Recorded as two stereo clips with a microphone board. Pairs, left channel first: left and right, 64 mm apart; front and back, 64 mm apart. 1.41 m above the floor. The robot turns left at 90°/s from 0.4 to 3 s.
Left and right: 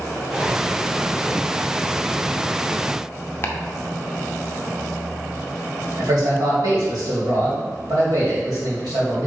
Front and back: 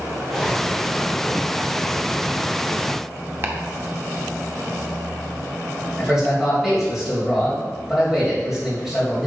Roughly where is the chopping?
Behind left.